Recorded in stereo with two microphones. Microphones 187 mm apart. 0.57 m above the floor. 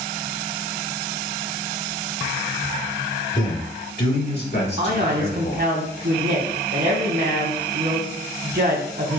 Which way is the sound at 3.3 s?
40° left (ahead or behind).